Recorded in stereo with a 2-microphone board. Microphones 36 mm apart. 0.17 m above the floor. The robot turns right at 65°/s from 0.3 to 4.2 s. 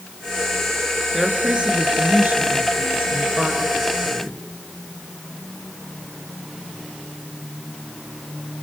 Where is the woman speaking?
175° right, 3 m; by 4.4 s 25° left, 3 m.